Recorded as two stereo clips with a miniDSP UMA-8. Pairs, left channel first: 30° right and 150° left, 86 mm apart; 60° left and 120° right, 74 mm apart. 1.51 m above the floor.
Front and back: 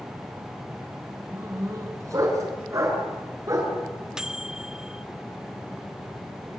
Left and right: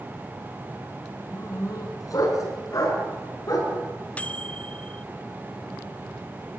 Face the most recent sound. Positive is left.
turn(degrees=80)